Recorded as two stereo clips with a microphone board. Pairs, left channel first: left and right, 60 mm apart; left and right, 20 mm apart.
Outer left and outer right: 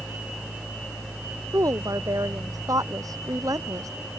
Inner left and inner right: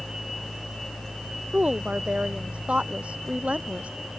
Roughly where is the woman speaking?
Right.